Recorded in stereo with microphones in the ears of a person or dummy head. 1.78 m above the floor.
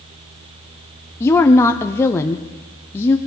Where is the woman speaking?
15° left (ahead or behind), 0.8 m.